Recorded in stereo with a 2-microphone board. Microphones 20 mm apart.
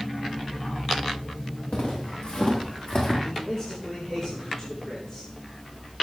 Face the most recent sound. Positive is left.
turn(degrees=25)  # may be behind; listen again after turning